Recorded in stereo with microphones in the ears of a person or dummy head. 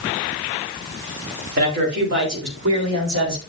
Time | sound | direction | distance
1.6 | a man speaking | 50° right (ahead or behind) | 3.5 m